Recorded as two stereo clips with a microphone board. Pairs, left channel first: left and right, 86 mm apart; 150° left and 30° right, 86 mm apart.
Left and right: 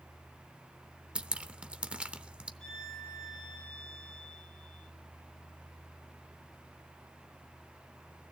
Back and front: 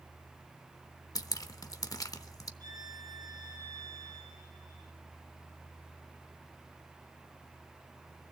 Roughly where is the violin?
Ahead.